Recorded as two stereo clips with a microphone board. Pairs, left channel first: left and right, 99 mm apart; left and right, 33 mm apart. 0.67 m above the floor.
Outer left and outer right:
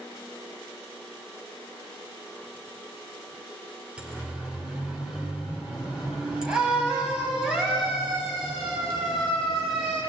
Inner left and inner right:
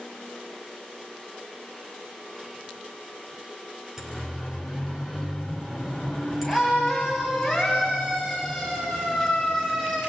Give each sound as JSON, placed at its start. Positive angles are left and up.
{"t": 4.0, "sound": "a siren", "side_deg": -10, "distance_m": 3.5}